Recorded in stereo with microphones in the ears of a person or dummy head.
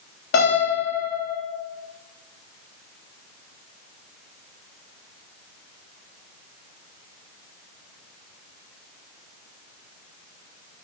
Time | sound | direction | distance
0.3 | a piano | 65° left (ahead or behind) | 3.5 m